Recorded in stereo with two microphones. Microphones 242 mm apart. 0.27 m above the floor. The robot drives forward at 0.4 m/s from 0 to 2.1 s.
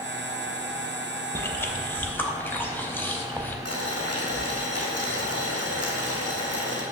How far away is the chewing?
About 0.6 m.